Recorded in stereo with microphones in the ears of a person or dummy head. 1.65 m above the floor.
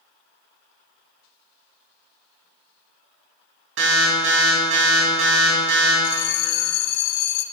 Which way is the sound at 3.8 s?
80° right.